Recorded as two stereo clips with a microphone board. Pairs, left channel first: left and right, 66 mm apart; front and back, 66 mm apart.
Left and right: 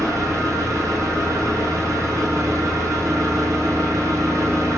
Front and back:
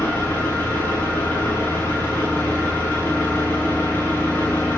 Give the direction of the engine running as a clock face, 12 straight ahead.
2 o'clock.